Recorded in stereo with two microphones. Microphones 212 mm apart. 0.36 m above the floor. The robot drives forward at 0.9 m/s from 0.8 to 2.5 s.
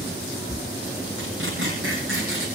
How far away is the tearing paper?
About 9.5 m.